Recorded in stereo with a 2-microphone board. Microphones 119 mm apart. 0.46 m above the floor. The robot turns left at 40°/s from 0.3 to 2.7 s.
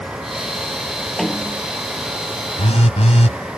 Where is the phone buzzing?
65° left (ahead or behind); by 3.4 s 70° left (ahead or behind).